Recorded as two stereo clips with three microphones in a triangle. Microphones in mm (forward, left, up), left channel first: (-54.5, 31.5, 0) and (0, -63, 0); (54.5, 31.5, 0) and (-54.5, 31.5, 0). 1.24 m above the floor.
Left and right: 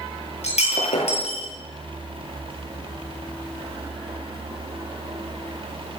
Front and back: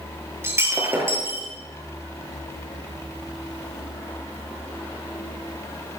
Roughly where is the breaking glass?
Left.